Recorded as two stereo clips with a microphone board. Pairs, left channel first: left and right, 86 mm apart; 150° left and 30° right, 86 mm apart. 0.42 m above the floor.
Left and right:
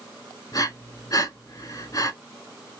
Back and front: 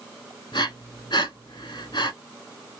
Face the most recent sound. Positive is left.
turn(degrees=130)